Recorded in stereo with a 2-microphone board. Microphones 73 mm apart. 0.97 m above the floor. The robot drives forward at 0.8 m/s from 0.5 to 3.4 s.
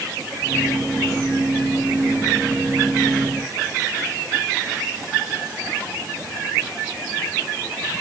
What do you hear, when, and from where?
Only background noise.